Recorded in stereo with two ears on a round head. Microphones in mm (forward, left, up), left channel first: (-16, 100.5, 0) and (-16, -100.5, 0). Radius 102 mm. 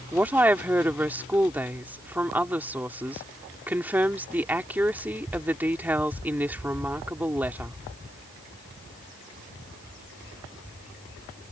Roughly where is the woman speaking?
Centre.